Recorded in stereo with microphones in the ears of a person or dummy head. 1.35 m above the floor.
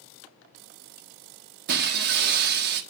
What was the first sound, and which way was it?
Breaking glass, 55° right (ahead or behind).